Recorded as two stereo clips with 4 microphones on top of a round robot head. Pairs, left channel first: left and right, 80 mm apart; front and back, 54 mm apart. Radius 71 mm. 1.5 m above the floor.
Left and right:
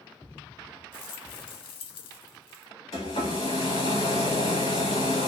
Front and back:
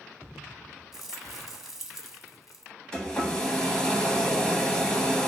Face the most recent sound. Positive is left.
turn(degrees=75)